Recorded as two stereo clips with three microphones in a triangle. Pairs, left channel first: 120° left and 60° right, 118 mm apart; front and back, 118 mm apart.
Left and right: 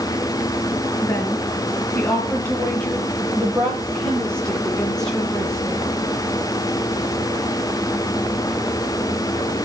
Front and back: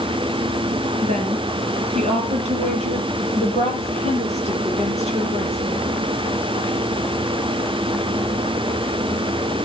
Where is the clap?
I don't hear a clap.